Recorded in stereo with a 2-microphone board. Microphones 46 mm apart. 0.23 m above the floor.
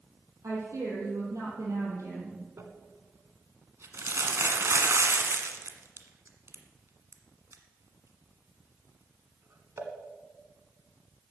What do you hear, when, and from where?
0.4 s a woman speaking: 75° right (ahead or behind), 7 m; by 2.4 s 80° right, 6.5 m
2.6 s crumpling: 60° right (ahead or behind), 1.5 m